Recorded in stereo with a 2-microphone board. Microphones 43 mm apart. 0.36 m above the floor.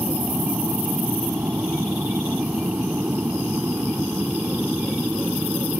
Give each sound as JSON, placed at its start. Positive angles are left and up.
{"t": 0.0, "sound": "an aircraft", "side_deg": -55}